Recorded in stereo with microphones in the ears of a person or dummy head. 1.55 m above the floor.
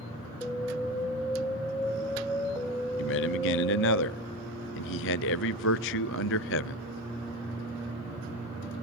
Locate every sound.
0.4 s an alarm: 10° left (ahead or behind), 2.5 m
3.0 s a man speaking: 60° left (ahead or behind), 0.6 m